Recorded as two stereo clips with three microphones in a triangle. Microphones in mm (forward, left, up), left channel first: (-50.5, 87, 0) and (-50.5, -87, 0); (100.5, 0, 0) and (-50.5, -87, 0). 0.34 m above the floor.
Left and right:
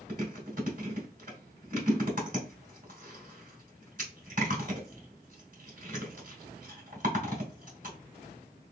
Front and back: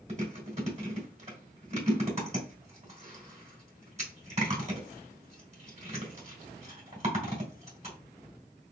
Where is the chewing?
110° right, 2.5 m.